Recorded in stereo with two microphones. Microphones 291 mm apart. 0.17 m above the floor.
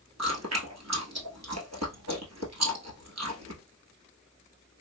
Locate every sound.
0.2 s chewing: 60° right (ahead or behind), 1.0 m